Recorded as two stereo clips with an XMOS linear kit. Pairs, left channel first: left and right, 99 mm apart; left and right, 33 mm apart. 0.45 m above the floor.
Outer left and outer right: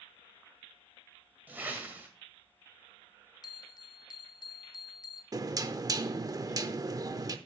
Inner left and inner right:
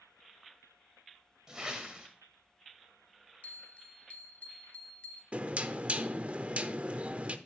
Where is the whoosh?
20° right (ahead or behind), 1.8 m.